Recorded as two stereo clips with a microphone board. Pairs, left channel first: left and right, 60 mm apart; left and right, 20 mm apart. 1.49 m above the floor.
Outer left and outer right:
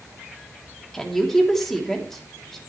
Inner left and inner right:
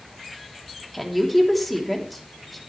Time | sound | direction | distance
0.9 | a woman speaking | 5° left (ahead or behind) | 3 m